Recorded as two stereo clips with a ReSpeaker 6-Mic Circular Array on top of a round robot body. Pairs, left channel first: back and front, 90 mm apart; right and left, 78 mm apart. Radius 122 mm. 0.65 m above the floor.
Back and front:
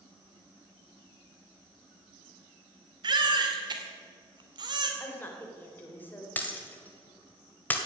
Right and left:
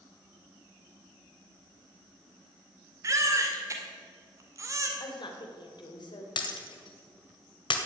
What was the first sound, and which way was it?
A baby crying, 40° left.